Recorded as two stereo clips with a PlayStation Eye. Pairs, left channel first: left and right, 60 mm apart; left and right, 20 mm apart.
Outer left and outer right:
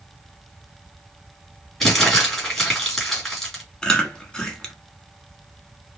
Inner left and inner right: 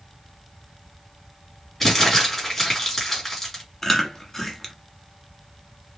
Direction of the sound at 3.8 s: 15° left (ahead or behind).